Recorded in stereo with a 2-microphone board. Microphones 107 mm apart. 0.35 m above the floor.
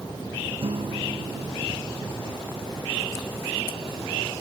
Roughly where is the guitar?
Right.